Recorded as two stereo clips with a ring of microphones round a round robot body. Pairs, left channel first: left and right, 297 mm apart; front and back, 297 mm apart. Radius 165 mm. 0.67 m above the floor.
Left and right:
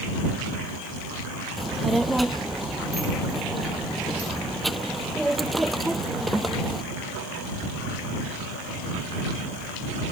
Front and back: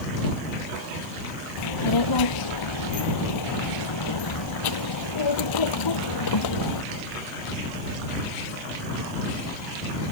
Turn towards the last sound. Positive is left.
turn(degrees=0)